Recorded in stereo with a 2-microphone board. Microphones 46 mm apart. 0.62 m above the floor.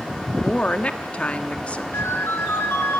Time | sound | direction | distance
0.4 | a woman speaking | 25° left (ahead or behind) | 1.1 m
1.9 | a ringtone | 60° left (ahead or behind) | 3 m